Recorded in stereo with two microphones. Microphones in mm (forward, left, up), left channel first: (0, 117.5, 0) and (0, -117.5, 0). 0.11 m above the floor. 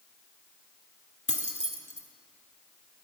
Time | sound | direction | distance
1.3 | keys jangling | 30° left (ahead or behind) | 0.8 m